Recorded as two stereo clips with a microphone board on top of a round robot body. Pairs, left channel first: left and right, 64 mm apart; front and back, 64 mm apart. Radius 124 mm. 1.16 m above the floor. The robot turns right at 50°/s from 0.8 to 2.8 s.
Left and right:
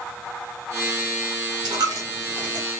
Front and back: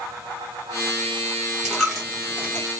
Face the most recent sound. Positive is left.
turn(degrees=-45)